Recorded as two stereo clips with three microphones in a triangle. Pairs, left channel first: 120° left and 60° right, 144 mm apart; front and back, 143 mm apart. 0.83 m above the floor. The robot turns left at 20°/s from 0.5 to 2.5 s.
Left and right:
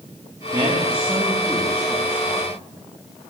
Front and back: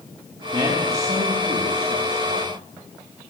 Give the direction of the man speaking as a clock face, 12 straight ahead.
4 o'clock.